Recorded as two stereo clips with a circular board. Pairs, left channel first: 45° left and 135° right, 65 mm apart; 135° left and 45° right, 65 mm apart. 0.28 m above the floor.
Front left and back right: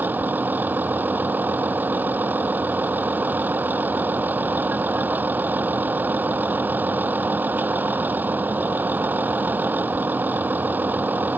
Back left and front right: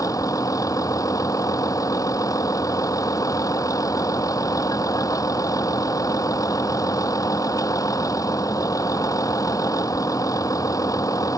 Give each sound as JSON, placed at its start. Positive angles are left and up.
{"t": 0.0, "sound": "a vehicle", "azimuth_deg": 165}